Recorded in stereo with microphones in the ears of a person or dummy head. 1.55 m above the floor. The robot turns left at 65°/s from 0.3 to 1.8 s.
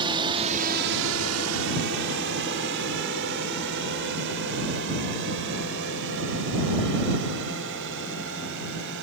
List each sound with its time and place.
0.0 s a drone: 25° right (ahead or behind); by 9.0 s 60° right (ahead or behind)